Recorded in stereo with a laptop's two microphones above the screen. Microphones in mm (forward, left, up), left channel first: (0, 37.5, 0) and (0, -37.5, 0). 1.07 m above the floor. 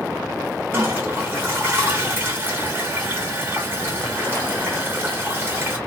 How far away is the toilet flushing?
About 0.9 m.